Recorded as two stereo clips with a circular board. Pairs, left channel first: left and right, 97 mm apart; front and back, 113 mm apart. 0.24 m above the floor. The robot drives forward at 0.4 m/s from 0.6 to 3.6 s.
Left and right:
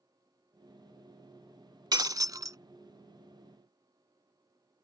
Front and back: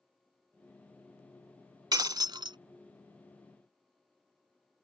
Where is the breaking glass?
130° right; by 2.6 s 140° right.